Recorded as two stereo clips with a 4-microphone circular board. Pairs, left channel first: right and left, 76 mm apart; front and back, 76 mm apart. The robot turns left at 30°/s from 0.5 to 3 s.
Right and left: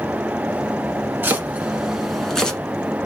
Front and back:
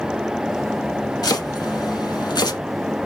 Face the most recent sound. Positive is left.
turn(degrees=-25)